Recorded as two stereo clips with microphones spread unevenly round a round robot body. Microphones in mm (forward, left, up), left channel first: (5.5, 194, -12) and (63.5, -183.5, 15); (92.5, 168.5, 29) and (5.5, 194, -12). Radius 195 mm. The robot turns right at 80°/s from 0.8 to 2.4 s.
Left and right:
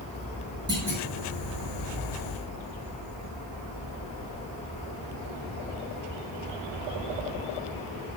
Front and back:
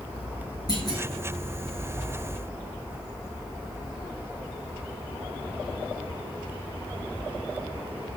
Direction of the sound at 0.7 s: 160° right.